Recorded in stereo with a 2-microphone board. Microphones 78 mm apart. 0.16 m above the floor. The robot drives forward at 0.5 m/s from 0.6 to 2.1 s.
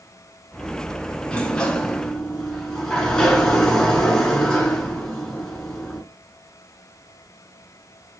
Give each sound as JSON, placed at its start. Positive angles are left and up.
{"t": 1.3, "sound": "a sliding door", "side_deg": 15, "distance_m": 0.5}